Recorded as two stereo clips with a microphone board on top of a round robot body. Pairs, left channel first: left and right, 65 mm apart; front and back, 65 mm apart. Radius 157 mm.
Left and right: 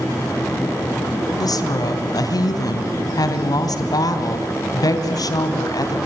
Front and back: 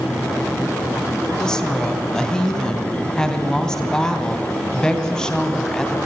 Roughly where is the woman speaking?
Left.